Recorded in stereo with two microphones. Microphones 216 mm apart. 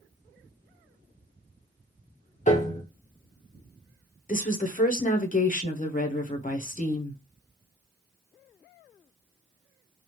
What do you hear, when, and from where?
2.5 s a piano: 35° left (ahead or behind), 0.5 m
4.3 s a woman speaking: 35° left (ahead or behind), 0.6 m